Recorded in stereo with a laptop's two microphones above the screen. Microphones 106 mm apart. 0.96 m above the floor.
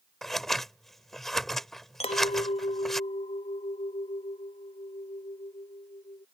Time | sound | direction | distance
0.2 | scissors | 5° left (ahead or behind) | ?
2.0 | a clink | 85° left | ?